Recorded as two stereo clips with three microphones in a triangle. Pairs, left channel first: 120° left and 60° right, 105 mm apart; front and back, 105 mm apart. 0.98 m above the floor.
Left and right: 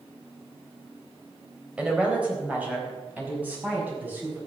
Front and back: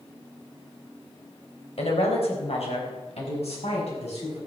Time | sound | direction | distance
1.8 | a woman speaking | 20° left | 4.5 m